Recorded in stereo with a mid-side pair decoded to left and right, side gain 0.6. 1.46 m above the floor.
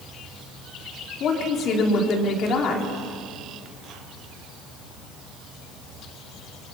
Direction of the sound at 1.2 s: 55° left.